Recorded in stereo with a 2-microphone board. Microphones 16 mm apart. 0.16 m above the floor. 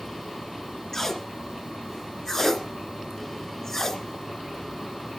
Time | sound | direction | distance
0.9 | tape being pulled | 30° left (ahead or behind) | 1.1 m